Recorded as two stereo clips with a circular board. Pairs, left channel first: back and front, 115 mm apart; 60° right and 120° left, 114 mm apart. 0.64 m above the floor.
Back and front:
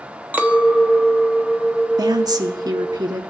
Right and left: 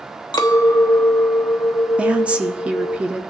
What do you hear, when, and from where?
0.3 s a clink: 65° right, 0.7 m
2.0 s a woman speaking: 45° left, 0.8 m